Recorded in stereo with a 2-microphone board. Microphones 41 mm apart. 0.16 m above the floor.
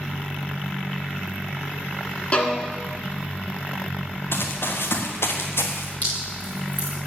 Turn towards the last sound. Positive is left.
turn(degrees=45)  # may be behind; listen again after turning